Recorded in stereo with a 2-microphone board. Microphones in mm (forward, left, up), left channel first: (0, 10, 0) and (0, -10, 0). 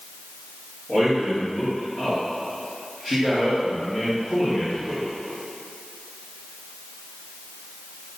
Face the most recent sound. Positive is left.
turn(degrees=35)  # may be behind; listen again after turning